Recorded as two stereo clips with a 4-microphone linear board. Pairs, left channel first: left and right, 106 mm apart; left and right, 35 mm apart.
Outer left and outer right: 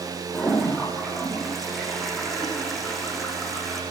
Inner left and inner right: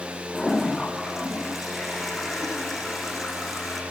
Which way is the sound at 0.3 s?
Centre (ahead or behind).